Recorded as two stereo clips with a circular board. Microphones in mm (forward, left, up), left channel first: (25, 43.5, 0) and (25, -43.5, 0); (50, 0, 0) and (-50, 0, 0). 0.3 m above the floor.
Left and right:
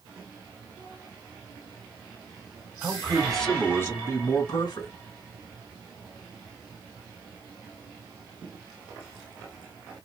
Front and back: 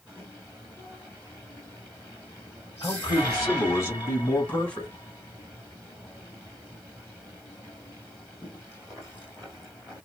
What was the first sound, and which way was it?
A man speaking, 30° right.